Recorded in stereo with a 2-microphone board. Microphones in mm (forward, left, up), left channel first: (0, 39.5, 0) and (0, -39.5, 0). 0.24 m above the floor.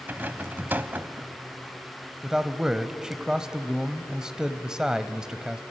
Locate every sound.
0.1 s a rattle: 25° right (ahead or behind), 0.9 m
2.2 s a man speaking: 10° right (ahead or behind), 1.0 m